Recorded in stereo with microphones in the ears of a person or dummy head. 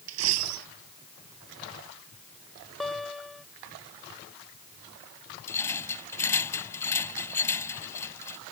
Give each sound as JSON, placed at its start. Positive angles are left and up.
{"t": 0.1, "sound": "a dropped coin", "side_deg": -70}
{"t": 2.8, "sound": "a guitar", "side_deg": 5}
{"t": 5.5, "sound": "a rattle", "side_deg": 15}